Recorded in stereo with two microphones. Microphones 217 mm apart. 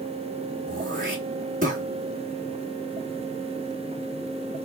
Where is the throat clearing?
35° right (ahead or behind), 2.5 m.